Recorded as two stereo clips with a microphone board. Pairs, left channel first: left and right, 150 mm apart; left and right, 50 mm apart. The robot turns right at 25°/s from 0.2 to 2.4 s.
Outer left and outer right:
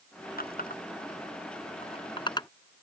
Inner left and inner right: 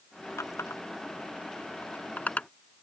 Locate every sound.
0.4 s a running tap: 75° left (ahead or behind); by 2.5 s 25° left (ahead or behind)